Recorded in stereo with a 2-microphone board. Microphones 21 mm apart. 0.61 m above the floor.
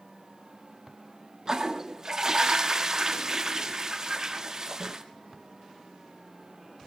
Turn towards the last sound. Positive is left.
turn(degrees=-30)  # may be behind; listen again after turning